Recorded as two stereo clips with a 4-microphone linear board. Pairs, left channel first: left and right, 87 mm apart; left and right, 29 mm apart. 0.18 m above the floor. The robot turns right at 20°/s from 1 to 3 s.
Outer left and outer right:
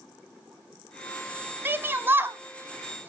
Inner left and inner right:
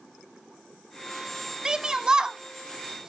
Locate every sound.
1.6 s a shout: 25° right (ahead or behind), 1.1 m; by 3.1 s 20° right (ahead or behind), 1.1 m